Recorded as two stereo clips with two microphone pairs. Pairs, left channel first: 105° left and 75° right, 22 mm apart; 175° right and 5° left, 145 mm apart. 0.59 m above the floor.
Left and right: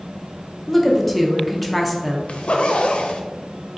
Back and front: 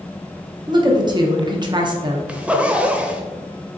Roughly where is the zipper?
Left.